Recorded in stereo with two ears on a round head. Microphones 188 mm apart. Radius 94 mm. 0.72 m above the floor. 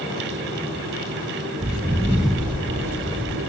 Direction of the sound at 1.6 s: 35° right (ahead or behind).